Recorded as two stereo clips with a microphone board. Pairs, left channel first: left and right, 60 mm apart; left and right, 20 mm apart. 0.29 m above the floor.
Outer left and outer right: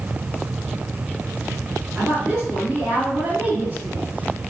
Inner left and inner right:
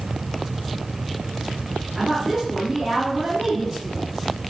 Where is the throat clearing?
No throat clearing in this recording.